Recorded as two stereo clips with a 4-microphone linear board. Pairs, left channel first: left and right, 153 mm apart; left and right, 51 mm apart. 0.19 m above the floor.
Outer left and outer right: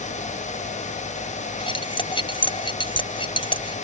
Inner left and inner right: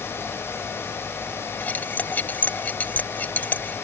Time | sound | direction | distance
1.6 | cutlery clinking | 35° left (ahead or behind) | ?